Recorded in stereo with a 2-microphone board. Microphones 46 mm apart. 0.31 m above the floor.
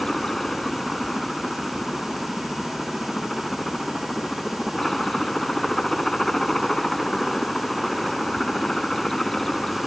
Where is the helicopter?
10° left (ahead or behind).